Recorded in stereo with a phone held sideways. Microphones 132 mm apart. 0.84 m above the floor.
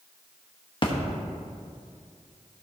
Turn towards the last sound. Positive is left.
turn(degrees=40)  # may be behind; listen again after turning